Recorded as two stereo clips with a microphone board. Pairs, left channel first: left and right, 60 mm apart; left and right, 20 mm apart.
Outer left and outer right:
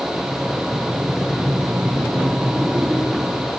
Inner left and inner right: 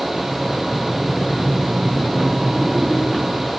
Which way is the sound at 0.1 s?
15° right (ahead or behind).